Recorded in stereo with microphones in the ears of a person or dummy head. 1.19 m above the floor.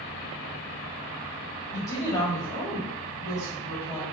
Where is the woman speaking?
15° left (ahead or behind), 1.4 m.